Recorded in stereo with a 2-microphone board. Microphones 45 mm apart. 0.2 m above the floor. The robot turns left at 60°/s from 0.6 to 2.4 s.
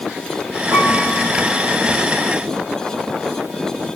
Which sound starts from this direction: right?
A piano, at 0.7 s.